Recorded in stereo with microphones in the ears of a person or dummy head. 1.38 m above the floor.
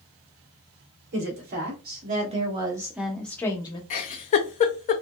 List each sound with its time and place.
1.1 s a woman speaking: 60° right (ahead or behind), 1.4 m; by 3.8 s 25° left (ahead or behind), 0.9 m
3.9 s a giggle: 35° left (ahead or behind), 0.6 m